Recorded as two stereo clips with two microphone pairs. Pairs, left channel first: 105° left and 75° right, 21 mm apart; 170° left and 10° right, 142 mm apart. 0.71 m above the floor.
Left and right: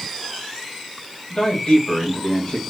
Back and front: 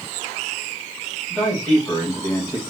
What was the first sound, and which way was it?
A man speaking, 85° left.